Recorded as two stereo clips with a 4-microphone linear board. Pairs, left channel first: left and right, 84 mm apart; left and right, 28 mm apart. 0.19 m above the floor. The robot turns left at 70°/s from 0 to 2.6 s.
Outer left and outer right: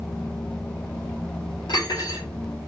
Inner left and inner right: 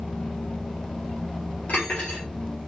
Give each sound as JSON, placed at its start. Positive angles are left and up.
{"t": 1.7, "sound": "cutlery clinking", "azimuth_deg": 80, "distance_m": 2.5}